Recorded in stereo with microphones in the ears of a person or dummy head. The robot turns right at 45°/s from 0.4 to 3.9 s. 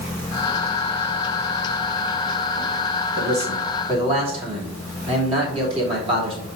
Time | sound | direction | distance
3.2 | a man speaking | 70° right | 3 m